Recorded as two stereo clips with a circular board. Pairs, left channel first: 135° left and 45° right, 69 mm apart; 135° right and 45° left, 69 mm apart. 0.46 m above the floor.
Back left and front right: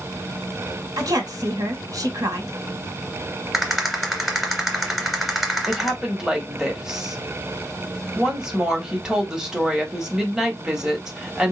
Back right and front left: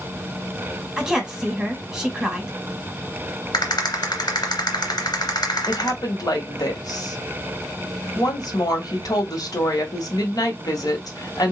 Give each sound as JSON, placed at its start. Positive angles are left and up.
{"t": 1.0, "sound": "a woman speaking", "azimuth_deg": -35, "distance_m": 2.0}
{"t": 3.5, "sound": "a rattle", "azimuth_deg": -135, "distance_m": 2.5}
{"t": 5.7, "sound": "a woman speaking", "azimuth_deg": -125, "distance_m": 2.0}